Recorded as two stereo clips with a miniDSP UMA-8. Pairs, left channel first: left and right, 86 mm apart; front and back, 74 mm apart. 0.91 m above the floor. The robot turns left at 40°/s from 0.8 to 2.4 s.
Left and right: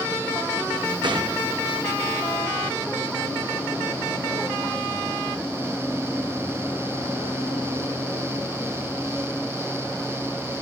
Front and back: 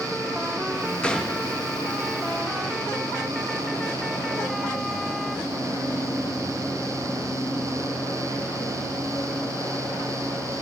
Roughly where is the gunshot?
Right.